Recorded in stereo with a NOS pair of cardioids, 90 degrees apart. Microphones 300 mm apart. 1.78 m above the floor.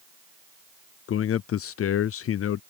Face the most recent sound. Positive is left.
turn(degrees=50)